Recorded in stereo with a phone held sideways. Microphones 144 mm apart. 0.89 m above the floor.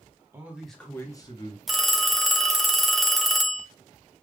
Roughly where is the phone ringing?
Centre.